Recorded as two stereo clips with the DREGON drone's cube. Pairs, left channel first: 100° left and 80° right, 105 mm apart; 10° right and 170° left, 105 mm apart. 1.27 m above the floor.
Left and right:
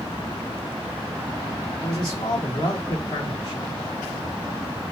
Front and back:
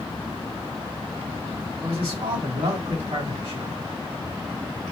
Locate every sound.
1.8 s a man speaking: 145° left, 2.5 m